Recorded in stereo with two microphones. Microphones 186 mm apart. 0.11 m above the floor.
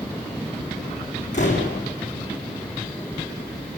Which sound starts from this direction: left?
A door slam, at 1.3 s.